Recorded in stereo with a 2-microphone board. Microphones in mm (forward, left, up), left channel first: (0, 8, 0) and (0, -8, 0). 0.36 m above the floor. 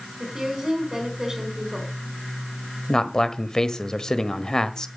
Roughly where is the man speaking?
Left.